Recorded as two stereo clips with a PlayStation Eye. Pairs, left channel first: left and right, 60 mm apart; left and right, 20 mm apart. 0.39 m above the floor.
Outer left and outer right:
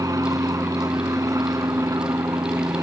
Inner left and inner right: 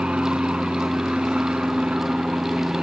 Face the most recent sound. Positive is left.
turn(degrees=-70)  # may be behind; listen again after turning